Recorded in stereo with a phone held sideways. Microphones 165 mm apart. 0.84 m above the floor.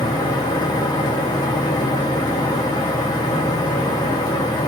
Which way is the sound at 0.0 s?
25° left (ahead or behind).